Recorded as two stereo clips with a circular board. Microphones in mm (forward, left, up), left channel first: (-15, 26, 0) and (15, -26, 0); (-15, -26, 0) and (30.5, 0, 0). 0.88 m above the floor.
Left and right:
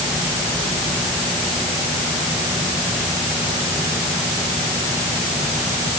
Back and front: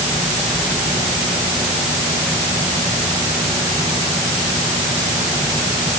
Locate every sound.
Only background noise.